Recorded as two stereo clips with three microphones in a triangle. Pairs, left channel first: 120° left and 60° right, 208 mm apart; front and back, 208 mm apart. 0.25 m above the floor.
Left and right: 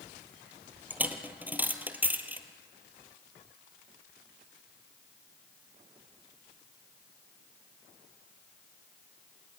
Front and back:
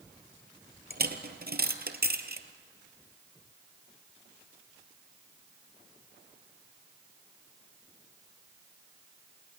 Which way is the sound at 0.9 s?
140° right.